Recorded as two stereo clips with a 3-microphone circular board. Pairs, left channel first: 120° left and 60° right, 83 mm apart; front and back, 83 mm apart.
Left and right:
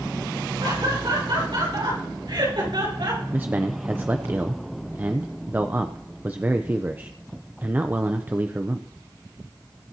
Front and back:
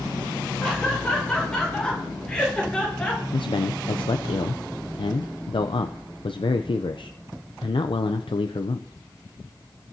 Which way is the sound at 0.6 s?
80° right.